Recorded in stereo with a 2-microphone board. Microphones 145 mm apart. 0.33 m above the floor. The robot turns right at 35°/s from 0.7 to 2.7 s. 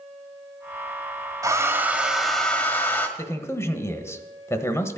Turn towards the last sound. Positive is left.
turn(degrees=20)  # may be behind; listen again after turning